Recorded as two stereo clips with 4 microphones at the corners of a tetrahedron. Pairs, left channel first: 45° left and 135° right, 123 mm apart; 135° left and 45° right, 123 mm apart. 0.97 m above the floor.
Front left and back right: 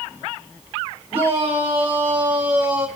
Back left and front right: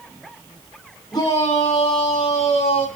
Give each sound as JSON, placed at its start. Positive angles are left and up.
{"t": 1.1, "sound": "a shout", "azimuth_deg": -170, "distance_m": 3.5}